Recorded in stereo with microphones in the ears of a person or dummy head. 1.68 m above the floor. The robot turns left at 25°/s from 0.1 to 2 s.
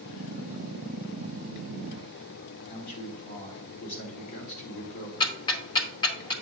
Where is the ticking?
20° left (ahead or behind), 0.8 m.